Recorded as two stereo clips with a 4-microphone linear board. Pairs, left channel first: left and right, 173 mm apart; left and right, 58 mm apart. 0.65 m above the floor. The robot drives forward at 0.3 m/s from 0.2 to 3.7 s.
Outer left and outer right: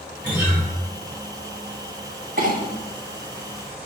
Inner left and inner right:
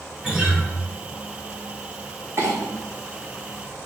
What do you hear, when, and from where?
0.2 s a guitar: 10° right (ahead or behind), 1.7 m; by 0.6 s 15° right (ahead or behind), 1.6 m
2.4 s a clink: 55° right (ahead or behind), 0.8 m